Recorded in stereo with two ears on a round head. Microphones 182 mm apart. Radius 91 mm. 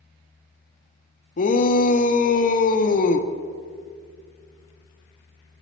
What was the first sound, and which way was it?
A shout, 40° left (ahead or behind).